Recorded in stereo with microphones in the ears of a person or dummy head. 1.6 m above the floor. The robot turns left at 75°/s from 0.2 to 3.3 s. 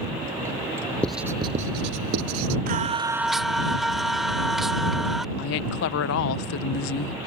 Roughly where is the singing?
Behind right.